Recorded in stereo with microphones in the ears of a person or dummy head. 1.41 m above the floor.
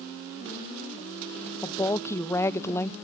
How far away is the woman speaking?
About 0.6 m.